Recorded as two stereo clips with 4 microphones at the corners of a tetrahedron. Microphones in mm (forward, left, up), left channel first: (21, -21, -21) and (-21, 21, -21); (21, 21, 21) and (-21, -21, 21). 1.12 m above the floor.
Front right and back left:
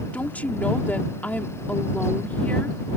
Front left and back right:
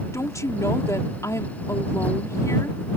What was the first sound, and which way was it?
A woman speaking, 20° left.